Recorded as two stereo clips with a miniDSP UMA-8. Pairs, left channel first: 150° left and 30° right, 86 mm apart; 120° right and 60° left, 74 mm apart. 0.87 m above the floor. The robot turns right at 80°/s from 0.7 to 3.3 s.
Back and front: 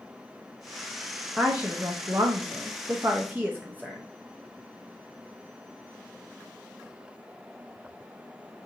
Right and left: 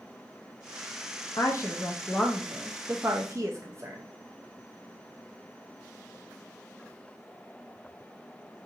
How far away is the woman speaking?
About 0.6 m.